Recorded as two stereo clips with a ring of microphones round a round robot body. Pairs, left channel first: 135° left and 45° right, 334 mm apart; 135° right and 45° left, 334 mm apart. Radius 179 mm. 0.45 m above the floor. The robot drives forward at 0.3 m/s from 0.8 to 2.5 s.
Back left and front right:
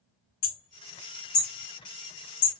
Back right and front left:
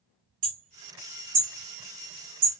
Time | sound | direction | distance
0.4 | hammering | 95° left | 2 m